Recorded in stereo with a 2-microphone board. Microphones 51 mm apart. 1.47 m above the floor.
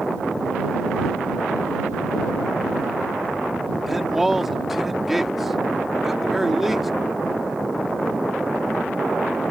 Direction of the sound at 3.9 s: 5° right (ahead or behind).